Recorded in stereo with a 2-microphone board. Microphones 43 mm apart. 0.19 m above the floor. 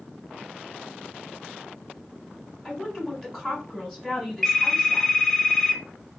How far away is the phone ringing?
About 1.1 m.